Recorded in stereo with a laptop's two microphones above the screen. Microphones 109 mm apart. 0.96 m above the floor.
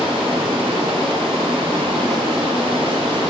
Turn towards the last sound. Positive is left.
turn(degrees=-50)  # may be behind; listen again after turning